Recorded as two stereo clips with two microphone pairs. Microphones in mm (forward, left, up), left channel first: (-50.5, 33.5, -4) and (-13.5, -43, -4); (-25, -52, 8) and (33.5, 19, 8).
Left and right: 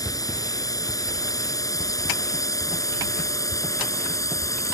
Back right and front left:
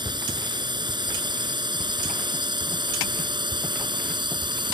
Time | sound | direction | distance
0.0 | a drone | 80° left | ?